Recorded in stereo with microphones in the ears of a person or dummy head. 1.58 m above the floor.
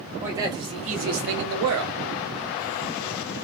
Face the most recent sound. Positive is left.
turn(degrees=-85)